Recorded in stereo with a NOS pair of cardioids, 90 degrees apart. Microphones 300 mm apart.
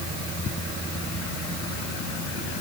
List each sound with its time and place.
Only background noise.